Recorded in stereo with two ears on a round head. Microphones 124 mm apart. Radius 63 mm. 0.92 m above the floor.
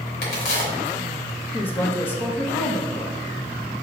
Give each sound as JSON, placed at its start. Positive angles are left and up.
{"t": 0.2, "sound": "a crack", "side_deg": 85, "distance_m": 2.5}
{"t": 1.5, "sound": "a woman speaking", "side_deg": 15, "distance_m": 1.1}